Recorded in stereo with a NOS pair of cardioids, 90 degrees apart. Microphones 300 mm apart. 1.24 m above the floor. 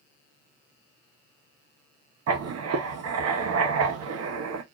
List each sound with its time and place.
2.3 s writing: 55° right, 1.0 m